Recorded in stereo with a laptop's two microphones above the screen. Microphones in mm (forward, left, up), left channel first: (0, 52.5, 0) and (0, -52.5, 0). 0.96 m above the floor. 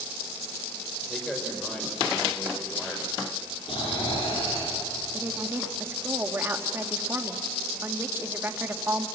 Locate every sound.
1.1 s a man speaking: 5° left (ahead or behind), 4 m
3.7 s snoring: 55° left (ahead or behind), 9.5 m
5.1 s a woman speaking: 20° right (ahead or behind), 2.0 m